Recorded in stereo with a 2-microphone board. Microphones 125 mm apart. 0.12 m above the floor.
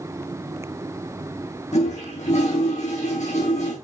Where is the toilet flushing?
65° left (ahead or behind), 5 m.